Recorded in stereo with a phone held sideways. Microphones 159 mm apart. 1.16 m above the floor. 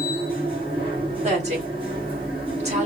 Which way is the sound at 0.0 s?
35° right (ahead or behind).